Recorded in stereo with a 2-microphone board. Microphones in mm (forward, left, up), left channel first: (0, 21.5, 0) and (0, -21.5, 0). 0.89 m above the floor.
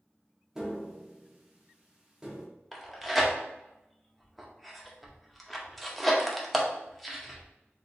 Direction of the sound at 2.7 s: Centre (ahead or behind).